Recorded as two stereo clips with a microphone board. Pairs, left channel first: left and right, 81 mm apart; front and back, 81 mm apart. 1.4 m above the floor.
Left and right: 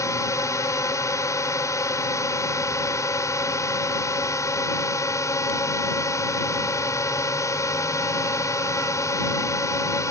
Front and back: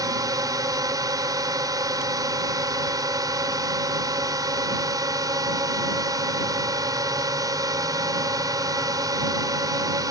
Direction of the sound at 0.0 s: 140° left.